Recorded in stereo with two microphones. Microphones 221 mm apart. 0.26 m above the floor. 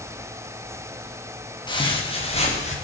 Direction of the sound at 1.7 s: 20° left (ahead or behind).